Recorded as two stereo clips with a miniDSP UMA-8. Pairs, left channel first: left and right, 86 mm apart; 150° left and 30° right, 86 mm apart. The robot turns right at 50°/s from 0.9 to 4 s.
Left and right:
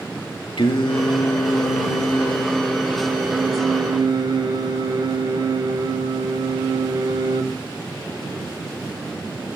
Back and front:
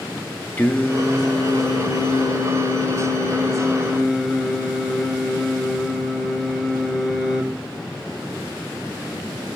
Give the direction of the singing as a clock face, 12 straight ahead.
9 o'clock.